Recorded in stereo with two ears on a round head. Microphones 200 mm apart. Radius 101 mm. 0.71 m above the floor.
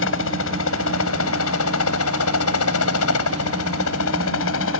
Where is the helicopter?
60° left (ahead or behind); by 4.8 s 65° left (ahead or behind).